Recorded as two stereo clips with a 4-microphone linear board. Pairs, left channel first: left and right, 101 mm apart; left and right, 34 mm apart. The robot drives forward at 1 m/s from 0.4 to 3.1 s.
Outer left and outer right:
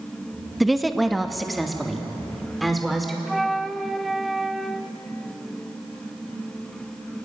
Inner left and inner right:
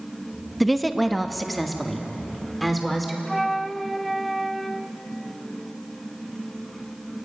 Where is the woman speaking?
Centre (ahead or behind), 0.8 m.